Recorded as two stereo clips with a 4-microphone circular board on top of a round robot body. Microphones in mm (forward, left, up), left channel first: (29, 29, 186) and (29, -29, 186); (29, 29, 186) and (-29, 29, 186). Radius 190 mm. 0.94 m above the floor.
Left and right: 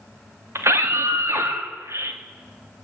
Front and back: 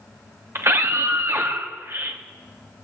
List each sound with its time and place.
0.6 s a scream: 130° right, 2.5 m